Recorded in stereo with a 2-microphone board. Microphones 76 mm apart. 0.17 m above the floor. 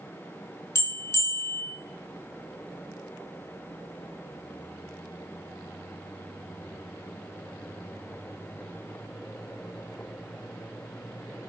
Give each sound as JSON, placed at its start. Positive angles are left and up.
{"t": 0.8, "sound": "a bell", "side_deg": 40, "distance_m": 0.8}